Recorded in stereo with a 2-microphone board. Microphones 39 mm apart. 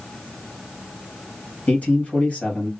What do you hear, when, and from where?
1.7 s a man speaking: 50° left (ahead or behind), 2.5 m